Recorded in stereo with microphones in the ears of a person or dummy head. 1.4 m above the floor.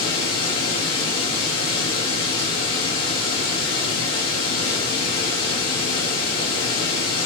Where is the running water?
80° left, 1.5 m.